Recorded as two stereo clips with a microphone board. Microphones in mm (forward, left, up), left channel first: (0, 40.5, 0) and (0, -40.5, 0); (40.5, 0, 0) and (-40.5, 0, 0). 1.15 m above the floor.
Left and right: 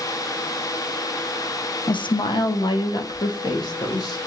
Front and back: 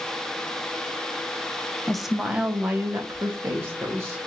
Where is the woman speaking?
85° left, 0.5 m; by 4.2 s 125° left, 1.6 m.